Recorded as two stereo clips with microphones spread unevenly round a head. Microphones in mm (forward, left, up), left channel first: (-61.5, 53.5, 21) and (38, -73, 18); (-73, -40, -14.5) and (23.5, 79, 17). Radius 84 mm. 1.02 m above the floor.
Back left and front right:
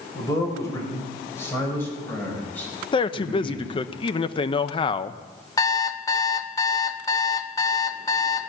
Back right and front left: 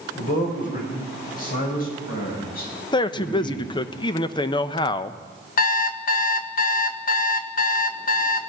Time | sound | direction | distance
0.1 | a man speaking | 165° right | 4.5 m
2.9 | a man speaking | 175° right | 0.6 m
5.6 | an alarm clock | 160° right | 0.8 m